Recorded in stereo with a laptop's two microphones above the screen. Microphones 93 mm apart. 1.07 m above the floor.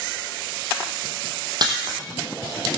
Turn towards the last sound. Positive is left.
turn(degrees=-50)  # may be behind; listen again after turning